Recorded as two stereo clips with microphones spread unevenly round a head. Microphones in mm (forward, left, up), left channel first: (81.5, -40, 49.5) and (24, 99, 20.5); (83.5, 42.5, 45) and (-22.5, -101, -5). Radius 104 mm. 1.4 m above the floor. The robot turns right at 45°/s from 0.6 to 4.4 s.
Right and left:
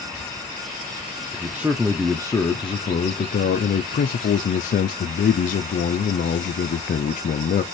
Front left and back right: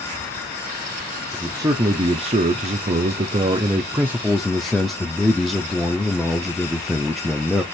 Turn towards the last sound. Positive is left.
turn(degrees=-50)